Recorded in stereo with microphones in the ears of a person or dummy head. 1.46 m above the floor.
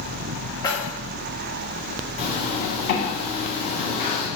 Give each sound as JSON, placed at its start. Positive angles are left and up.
{"t": 0.6, "sound": "keys jangling", "side_deg": 25, "distance_m": 1.6}
{"t": 2.2, "sound": "a zipper", "side_deg": 40, "distance_m": 3.5}